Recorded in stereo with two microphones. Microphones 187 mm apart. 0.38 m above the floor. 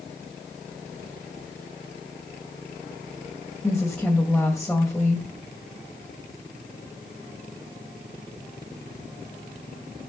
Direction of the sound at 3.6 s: 5° left (ahead or behind).